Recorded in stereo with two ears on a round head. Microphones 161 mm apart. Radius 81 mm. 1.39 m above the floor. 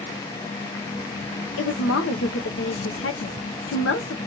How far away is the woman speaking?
About 0.8 m.